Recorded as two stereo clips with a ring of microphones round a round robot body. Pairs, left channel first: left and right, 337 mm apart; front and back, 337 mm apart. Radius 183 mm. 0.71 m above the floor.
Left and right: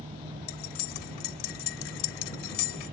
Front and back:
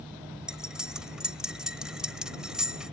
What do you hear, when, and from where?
0.5 s cutlery clinking: 90° left